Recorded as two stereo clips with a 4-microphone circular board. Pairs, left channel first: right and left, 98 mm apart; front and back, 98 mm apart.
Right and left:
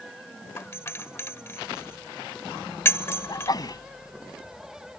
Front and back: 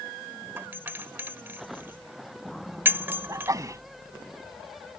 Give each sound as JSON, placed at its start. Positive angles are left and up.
{"t": 0.6, "sound": "a doorbell", "azimuth_deg": -130}
{"t": 3.3, "sound": "a sneeze", "azimuth_deg": -130}